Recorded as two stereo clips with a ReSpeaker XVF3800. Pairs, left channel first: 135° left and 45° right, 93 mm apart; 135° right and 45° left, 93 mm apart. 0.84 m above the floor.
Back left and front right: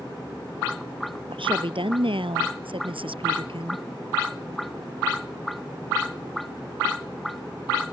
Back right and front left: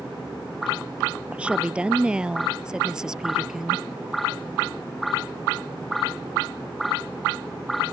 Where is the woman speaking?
30° right; by 3.8 s 40° right.